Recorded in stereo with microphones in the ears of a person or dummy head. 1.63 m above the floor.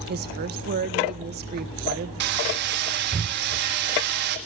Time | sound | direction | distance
0.1 | a woman speaking | 45° right (ahead or behind) | 1.4 m
2.2 | hammering | 45° right (ahead or behind) | 1.5 m